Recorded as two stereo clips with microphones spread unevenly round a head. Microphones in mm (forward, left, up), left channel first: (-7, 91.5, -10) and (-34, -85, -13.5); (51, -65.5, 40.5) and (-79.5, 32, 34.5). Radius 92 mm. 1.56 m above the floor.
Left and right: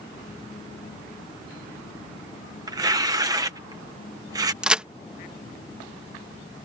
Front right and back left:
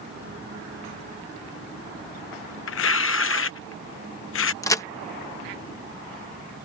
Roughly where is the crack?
Ahead.